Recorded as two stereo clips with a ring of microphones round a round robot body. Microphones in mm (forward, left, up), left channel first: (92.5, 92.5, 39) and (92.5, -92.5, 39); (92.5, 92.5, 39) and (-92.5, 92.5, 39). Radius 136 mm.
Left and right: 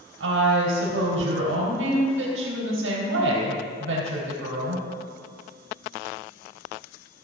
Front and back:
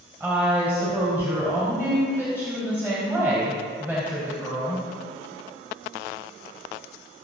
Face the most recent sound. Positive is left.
turn(degrees=-100)